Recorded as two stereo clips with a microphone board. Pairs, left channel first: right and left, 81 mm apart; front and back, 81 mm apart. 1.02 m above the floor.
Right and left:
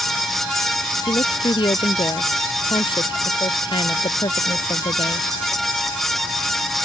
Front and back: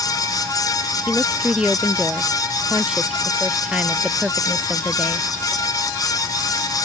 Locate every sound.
1.1 s a woman speaking: 100° right